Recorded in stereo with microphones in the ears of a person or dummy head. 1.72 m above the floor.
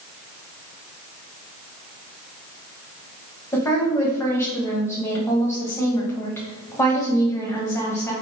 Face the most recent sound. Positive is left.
turn(degrees=20)  # may be behind; listen again after turning